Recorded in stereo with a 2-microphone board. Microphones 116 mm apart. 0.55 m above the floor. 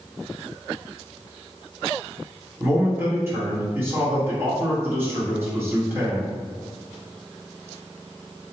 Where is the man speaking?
20° right (ahead or behind), 1.3 m.